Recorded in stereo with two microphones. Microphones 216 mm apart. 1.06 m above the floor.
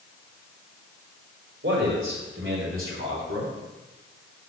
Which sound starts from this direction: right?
A man speaking, at 1.6 s.